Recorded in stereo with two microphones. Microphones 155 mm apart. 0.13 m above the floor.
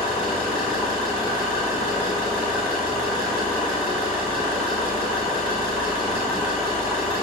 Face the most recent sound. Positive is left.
turn(degrees=-5)  # may be behind; listen again after turning